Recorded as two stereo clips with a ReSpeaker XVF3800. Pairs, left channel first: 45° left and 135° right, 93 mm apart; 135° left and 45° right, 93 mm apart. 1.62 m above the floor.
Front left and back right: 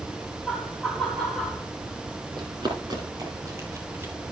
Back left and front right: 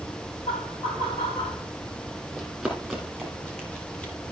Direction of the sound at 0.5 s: 130° left.